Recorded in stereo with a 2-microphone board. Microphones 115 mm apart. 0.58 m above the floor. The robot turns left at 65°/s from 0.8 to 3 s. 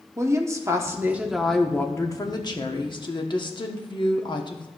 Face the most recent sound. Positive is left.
turn(degrees=80)